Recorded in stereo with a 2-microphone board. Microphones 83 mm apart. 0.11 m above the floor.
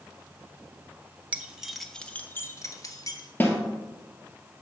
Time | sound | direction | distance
1.3 | keys jangling | 20° right (ahead or behind) | 0.9 m
3.4 | a snare drum | 25° left (ahead or behind) | 1.6 m